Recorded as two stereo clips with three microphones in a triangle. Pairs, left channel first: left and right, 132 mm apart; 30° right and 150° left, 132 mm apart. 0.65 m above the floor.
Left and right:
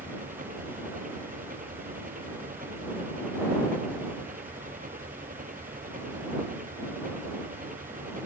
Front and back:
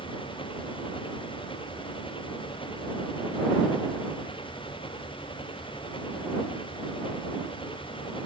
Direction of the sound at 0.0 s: 80° right.